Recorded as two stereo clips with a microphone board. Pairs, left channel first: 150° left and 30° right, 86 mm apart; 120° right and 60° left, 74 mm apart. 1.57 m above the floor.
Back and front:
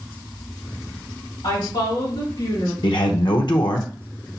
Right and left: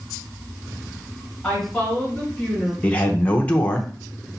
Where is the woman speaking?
145° left, 2.5 m; by 2.7 s 155° left, 3 m.